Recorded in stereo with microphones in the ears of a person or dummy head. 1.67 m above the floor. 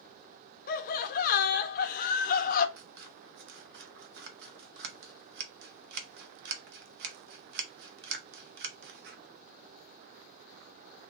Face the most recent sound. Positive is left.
turn(degrees=-60)  # may be behind; listen again after turning